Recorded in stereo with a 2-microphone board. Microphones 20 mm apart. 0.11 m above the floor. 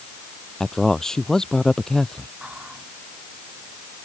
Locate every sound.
0.6 s a man speaking: 25° left (ahead or behind)
2.4 s whispering: 70° right (ahead or behind)